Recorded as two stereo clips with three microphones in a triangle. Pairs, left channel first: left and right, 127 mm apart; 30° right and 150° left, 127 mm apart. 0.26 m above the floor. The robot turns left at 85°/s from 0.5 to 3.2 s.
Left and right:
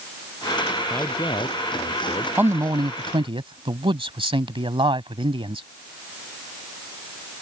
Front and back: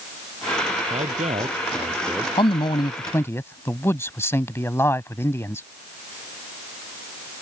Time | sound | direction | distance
0.9 | a man speaking | 170° left | ?
2.4 | a man speaking | 20° right | ?